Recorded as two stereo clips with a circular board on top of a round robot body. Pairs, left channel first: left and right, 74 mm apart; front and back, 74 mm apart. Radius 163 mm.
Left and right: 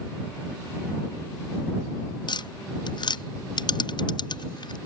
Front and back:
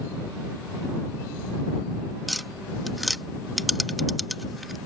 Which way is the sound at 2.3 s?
90° left.